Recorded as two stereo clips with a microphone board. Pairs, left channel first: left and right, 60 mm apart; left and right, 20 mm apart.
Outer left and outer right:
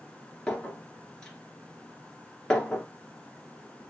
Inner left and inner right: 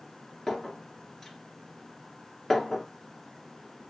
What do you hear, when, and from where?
0.5 s a clink: 10° left (ahead or behind), 1.7 m